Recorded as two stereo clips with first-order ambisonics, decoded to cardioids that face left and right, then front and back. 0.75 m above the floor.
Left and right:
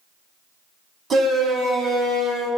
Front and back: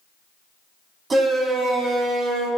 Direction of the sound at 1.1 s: 125° right.